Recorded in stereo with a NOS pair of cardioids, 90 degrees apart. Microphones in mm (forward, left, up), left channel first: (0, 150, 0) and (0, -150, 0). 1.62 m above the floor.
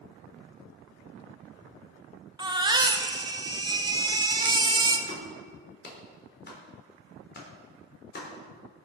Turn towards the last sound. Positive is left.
turn(degrees=35)